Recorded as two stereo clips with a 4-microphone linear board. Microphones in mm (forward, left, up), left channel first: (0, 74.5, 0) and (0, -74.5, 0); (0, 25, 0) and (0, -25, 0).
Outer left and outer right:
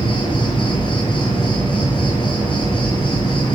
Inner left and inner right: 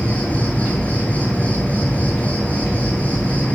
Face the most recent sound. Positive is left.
turn(degrees=35)  # may be behind; listen again after turning